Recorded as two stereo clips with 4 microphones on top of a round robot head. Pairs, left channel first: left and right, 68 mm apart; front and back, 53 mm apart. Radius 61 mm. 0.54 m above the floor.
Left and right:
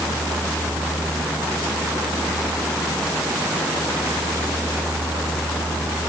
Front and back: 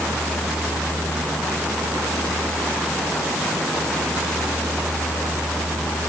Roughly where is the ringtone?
I don't hear a ringtone.